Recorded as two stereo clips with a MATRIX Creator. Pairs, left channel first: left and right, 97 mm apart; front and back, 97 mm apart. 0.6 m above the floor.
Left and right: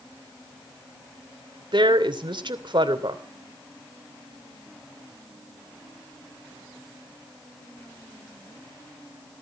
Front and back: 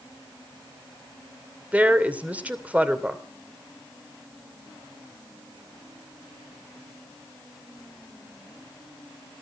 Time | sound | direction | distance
1.7 | a woman speaking | 110° right | 2.5 m